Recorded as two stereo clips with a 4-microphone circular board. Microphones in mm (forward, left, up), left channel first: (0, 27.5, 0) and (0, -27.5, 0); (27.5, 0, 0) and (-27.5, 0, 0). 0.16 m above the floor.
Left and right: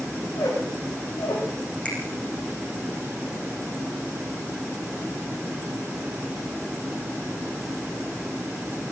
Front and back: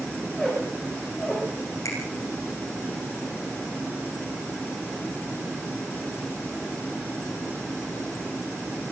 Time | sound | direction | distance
0.2 | a squeak | 95° left | 7 m
1.9 | a finger snap | 20° left | 8 m